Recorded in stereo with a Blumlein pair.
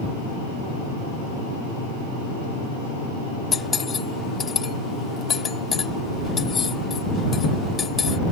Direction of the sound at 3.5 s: 20° left.